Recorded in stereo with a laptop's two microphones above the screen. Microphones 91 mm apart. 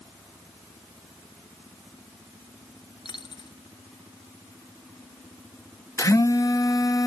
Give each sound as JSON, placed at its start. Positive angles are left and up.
{"t": 3.0, "sound": "a dropped coin", "side_deg": 65}
{"t": 6.0, "sound": "a phone buzzing", "side_deg": 40}